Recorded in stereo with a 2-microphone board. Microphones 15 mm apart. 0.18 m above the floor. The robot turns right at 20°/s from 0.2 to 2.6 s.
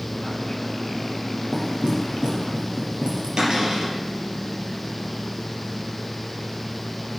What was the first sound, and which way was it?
Knocking, 65° right (ahead or behind).